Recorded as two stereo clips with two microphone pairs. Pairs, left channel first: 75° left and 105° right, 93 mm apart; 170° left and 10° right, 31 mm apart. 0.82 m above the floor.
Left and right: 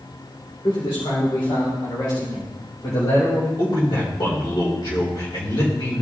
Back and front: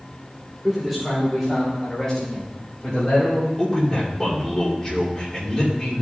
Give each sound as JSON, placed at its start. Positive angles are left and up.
{"t": 0.6, "sound": "a man speaking", "azimuth_deg": 70, "distance_m": 3.0}
{"t": 3.6, "sound": "a man speaking", "azimuth_deg": 105, "distance_m": 3.0}